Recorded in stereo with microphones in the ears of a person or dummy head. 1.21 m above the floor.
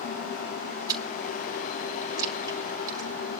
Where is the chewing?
20° right (ahead or behind), 3.5 m.